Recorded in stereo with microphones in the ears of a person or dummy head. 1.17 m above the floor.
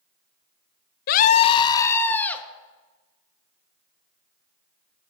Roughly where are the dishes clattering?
No dishes clattering in this recording.